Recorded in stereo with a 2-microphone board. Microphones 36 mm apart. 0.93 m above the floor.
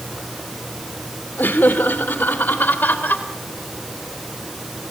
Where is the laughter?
70° left (ahead or behind), 2.5 m; by 3.2 s 65° left (ahead or behind), 3.5 m.